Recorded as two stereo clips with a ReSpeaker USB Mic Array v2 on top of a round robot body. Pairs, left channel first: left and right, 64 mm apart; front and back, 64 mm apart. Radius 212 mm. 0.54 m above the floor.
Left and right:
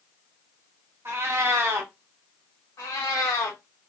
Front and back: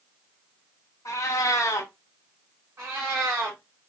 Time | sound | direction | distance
1.1 | a cat meowing | 40° right | 0.6 m
2.8 | a cat meowing | 135° left | 0.6 m